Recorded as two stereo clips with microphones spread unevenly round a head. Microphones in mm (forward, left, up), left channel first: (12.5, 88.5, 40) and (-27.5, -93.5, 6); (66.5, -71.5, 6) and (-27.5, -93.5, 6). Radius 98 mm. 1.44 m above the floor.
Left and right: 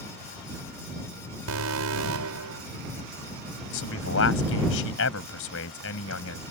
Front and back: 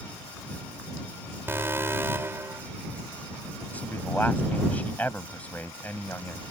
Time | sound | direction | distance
1.5 | an alarm | 100° right | ?
3.7 | a man speaking | 95° left | ?